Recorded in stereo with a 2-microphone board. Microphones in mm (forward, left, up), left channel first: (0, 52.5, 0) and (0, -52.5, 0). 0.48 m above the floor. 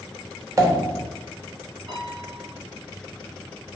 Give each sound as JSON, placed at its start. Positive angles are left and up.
{"t": 0.6, "sound": "a pop", "side_deg": -35, "distance_m": 1.0}
{"t": 1.9, "sound": "a piano", "side_deg": -60, "distance_m": 4.5}